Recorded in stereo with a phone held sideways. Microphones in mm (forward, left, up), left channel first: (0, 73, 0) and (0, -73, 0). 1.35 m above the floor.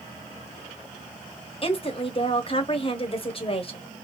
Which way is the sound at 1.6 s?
40° left (ahead or behind).